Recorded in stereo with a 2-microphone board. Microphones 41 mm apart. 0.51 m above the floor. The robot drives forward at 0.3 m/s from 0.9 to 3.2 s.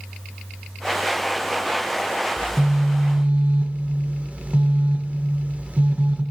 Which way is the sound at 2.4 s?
35° right (ahead or behind).